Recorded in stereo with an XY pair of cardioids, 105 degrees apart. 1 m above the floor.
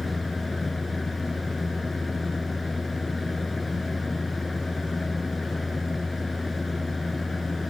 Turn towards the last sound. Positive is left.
turn(degrees=20)